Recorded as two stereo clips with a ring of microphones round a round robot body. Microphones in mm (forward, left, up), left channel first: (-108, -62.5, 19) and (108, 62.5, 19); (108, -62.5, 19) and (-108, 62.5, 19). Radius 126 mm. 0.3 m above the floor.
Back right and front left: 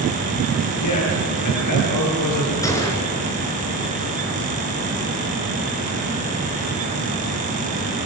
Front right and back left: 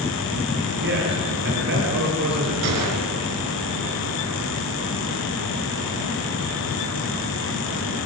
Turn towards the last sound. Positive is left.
turn(degrees=135)